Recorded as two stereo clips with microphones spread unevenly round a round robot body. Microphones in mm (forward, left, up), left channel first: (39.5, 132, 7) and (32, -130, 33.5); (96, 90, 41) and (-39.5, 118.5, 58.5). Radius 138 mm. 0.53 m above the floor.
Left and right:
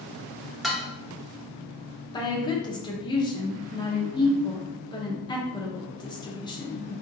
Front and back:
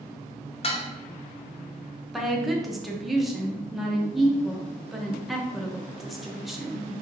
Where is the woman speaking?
60° left, 0.8 m.